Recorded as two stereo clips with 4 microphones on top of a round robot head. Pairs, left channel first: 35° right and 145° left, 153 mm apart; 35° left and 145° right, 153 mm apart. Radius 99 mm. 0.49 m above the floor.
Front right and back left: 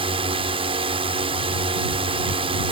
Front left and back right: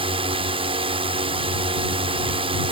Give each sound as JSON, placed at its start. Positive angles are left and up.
{"t": 0.0, "sound": "a drone", "azimuth_deg": 180}